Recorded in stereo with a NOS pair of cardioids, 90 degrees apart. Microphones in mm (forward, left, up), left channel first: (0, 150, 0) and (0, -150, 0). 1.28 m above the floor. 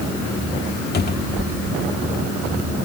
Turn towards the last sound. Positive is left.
turn(degrees=35)